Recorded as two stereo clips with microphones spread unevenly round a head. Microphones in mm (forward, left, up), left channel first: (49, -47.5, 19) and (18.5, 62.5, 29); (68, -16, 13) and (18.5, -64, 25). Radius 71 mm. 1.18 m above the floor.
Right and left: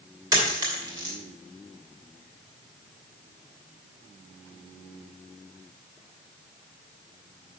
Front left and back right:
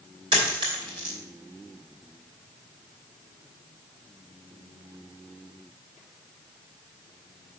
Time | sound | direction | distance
0.3 | a dropped coin | 170° left | 2.5 m